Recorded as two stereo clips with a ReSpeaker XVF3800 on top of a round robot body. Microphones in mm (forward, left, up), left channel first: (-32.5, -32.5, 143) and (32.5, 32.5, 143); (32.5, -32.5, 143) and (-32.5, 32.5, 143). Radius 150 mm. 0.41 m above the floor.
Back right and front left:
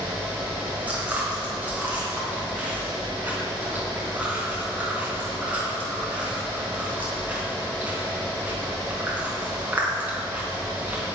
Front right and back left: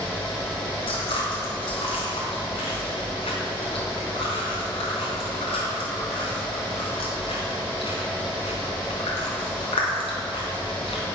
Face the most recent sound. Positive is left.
turn(degrees=-30)